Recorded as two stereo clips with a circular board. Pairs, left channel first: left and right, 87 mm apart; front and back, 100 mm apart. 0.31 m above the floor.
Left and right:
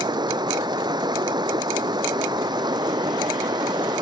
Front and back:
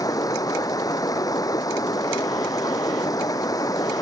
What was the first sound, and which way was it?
Running water, 55° right.